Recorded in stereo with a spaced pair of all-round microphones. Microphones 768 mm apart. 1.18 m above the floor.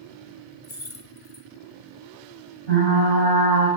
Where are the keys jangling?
45° left (ahead or behind), 0.9 m.